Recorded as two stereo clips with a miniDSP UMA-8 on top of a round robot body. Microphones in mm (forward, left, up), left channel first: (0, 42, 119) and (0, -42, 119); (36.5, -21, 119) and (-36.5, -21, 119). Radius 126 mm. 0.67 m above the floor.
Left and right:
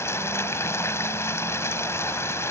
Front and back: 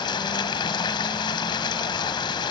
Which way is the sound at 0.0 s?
30° left.